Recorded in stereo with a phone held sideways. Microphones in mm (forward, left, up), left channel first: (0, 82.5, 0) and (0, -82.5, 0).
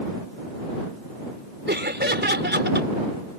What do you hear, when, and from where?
1.7 s laughter: 85° right